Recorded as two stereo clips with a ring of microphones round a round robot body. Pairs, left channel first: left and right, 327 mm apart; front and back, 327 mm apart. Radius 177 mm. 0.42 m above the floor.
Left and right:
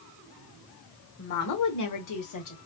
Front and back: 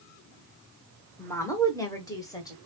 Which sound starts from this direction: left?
A woman speaking, at 1.2 s.